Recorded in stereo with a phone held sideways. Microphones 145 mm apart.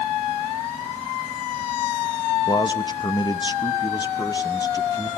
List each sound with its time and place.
2.5 s a man speaking: 30° left (ahead or behind), 1.0 m; by 5.1 s 25° left (ahead or behind), 2.0 m